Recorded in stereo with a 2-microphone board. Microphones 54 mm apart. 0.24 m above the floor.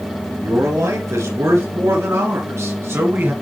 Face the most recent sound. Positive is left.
turn(degrees=-45)  # may be behind; listen again after turning